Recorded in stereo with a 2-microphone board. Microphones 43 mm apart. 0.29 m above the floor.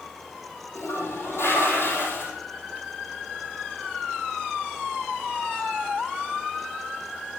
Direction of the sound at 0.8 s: 75° left (ahead or behind).